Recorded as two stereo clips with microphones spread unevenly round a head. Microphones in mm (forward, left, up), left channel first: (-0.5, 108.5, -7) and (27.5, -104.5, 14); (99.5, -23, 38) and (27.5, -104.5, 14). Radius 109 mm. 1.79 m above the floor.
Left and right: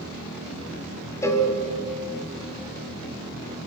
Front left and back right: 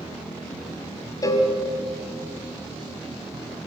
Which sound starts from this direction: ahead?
A cowbell, at 1.2 s.